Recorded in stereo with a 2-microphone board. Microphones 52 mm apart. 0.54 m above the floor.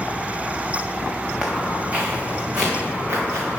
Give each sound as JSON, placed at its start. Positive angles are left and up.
{"t": 1.4, "sound": "footsteps", "side_deg": -20, "distance_m": 2.0}